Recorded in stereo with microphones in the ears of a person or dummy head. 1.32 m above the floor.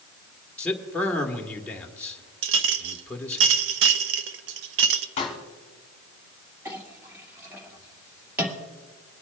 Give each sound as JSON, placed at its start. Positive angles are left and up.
{"t": 0.6, "sound": "a man speaking", "side_deg": 10, "distance_m": 1.2}
{"t": 2.4, "sound": "a clink", "side_deg": -65, "distance_m": 0.7}
{"t": 5.2, "sound": "a pop", "side_deg": 30, "distance_m": 1.8}
{"t": 6.7, "sound": "a clink", "side_deg": -15, "distance_m": 2.0}